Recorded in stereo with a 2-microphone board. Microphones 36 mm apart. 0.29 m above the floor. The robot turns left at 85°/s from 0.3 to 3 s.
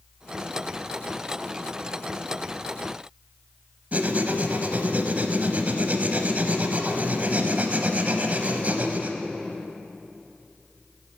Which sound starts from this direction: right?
Writing, at 3.9 s.